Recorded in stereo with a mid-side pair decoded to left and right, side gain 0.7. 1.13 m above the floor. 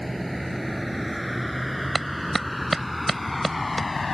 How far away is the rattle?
No rattle in this recording.